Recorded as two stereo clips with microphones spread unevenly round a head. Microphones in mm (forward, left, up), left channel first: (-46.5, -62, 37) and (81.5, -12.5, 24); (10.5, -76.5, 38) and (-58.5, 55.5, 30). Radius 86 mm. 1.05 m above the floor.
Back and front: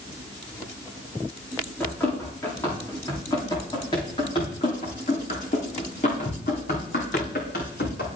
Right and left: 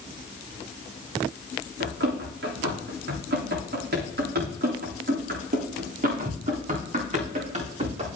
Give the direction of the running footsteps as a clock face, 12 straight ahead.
8 o'clock.